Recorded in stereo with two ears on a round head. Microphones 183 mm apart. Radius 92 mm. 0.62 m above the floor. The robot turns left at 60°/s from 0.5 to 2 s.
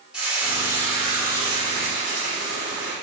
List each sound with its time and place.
0.1 s frying: 5° right, 2.0 m; by 2.9 s 95° right, 2.0 m